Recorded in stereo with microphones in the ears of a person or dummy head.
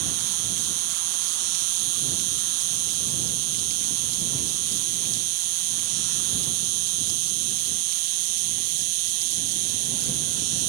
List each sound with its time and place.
0.0 s an insect: 75° right (ahead or behind)